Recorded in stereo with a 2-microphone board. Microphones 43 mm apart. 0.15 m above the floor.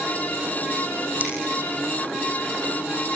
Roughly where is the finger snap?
Right.